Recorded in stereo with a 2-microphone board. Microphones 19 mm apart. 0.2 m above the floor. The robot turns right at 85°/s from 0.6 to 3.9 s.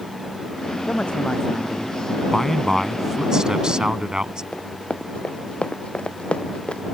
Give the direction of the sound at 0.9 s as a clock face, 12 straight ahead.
9 o'clock.